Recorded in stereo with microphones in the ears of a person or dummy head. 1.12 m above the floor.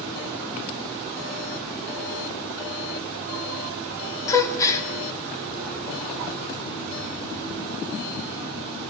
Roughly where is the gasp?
Centre.